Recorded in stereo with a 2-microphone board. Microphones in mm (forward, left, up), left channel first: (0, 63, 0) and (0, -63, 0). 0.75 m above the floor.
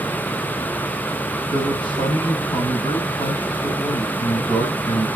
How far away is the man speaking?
About 5 m.